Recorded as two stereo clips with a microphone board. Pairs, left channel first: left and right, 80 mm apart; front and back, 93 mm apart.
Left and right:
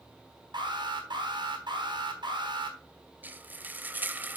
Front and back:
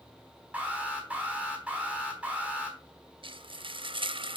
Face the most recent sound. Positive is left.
turn(degrees=-155)